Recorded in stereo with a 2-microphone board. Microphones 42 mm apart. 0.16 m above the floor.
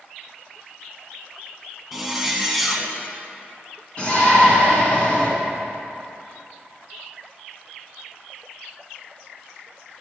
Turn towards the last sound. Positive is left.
turn(degrees=30)  # may be behind; listen again after turning